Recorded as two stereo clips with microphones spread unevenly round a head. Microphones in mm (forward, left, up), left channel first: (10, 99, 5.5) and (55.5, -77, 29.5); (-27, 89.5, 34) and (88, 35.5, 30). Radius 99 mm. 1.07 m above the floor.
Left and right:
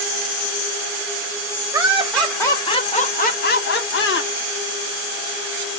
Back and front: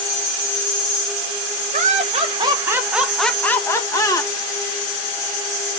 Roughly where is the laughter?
Ahead.